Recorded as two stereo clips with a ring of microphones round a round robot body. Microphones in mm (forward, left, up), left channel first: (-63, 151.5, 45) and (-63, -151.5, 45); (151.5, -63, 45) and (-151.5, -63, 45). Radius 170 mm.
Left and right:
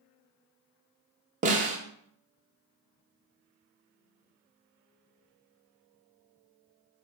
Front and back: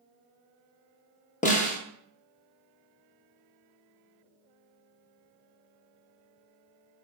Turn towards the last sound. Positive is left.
turn(degrees=-45)